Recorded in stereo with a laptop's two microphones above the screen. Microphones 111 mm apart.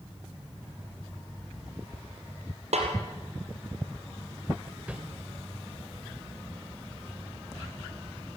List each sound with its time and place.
2.7 s a snare drum: 70° right (ahead or behind), 4 m
4.9 s a whoosh: 10° right (ahead or behind), 1.7 m